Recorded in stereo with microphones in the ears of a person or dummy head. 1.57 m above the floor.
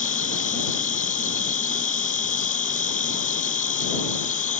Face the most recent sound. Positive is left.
turn(degrees=40)  # may be behind; listen again after turning